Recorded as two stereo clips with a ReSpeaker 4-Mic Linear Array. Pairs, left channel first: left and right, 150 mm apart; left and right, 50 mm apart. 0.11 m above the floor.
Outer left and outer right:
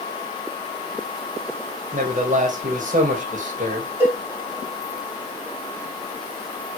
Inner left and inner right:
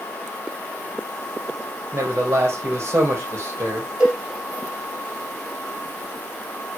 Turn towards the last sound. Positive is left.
turn(degrees=-15)  # may be behind; listen again after turning